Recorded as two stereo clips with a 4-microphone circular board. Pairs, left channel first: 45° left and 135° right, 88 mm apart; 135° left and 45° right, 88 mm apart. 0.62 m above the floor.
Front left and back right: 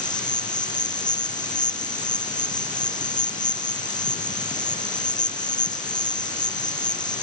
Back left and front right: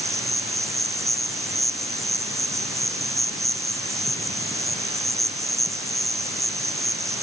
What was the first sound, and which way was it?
An insect, 10° left.